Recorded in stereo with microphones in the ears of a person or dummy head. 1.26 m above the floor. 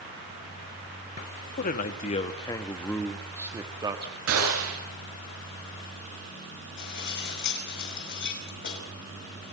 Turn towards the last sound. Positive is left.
turn(degrees=60)  # may be behind; listen again after turning